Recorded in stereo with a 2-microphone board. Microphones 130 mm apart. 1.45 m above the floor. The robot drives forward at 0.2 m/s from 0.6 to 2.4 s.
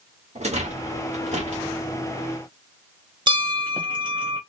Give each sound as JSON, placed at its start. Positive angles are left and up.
{"t": 0.3, "sound": "a rattle", "side_deg": -60, "distance_m": 1.3}
{"t": 3.3, "sound": "a bell", "side_deg": -40, "distance_m": 0.9}